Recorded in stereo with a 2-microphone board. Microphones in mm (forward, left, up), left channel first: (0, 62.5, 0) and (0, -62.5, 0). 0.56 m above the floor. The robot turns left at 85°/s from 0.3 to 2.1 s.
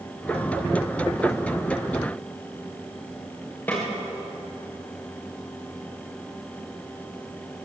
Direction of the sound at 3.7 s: 15° left (ahead or behind).